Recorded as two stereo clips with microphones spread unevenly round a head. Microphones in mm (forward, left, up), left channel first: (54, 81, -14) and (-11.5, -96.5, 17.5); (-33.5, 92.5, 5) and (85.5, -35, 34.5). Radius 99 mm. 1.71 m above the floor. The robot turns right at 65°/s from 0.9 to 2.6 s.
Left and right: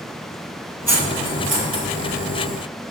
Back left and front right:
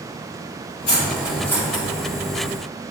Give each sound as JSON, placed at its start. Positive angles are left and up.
{"t": 0.9, "sound": "cutlery clinking", "azimuth_deg": 180, "distance_m": 1.7}